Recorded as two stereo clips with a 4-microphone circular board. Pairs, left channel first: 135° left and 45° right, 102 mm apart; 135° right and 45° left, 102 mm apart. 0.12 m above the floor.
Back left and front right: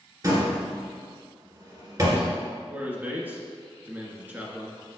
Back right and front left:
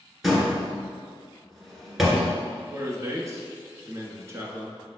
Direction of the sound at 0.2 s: 45° right.